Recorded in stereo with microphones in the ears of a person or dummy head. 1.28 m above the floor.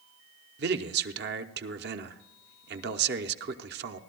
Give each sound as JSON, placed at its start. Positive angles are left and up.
{"t": 0.6, "sound": "a man speaking", "side_deg": -50, "distance_m": 0.8}